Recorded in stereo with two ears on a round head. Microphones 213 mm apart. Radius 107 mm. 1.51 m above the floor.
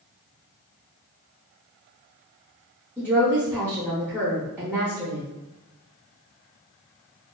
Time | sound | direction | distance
3.0 | a woman speaking | 5° right (ahead or behind) | 0.6 m